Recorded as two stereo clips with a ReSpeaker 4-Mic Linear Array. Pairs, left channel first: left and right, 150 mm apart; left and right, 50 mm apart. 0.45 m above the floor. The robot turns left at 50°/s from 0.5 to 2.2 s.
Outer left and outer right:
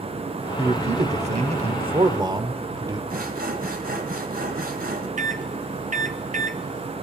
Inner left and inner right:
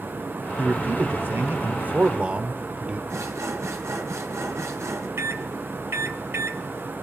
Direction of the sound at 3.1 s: 65° right (ahead or behind).